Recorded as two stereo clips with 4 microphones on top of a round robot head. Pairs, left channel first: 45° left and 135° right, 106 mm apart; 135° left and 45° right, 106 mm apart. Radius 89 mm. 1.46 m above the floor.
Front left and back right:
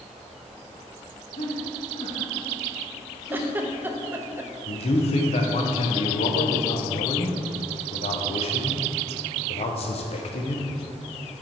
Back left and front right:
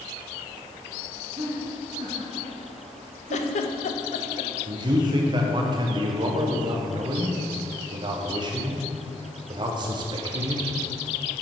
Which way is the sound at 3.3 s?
150° left.